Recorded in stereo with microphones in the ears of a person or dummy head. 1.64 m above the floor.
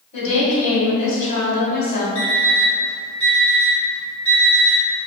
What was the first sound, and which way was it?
A woman speaking, 45° left (ahead or behind).